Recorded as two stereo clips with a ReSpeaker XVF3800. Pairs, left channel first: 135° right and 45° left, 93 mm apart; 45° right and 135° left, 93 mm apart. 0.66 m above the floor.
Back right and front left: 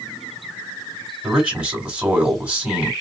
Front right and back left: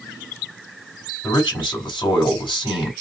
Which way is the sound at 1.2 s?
30° right.